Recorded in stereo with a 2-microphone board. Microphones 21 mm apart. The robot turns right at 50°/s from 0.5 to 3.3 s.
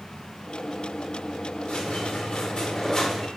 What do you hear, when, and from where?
1.7 s a squeak: 75° left, 0.7 m; by 3.3 s 155° left, 0.7 m